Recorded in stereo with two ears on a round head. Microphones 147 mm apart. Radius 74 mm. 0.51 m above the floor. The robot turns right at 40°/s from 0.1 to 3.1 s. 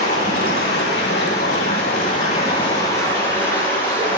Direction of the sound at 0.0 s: 45° left.